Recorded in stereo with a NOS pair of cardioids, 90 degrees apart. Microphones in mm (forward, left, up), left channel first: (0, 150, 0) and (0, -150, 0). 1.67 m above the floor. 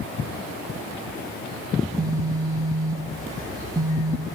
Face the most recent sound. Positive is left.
turn(degrees=-10)